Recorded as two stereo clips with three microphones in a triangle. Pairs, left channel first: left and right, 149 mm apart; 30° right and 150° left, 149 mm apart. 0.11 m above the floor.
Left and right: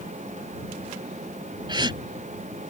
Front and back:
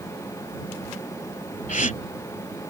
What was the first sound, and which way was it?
A gasp, 35° right.